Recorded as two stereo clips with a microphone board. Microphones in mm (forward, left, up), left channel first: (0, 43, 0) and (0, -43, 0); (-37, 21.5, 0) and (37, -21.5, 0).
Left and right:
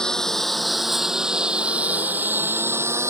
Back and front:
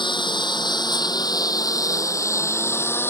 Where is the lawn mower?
170° left; by 3.1 s 145° right.